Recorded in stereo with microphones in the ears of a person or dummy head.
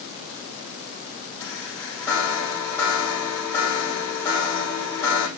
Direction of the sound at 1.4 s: 15° left (ahead or behind).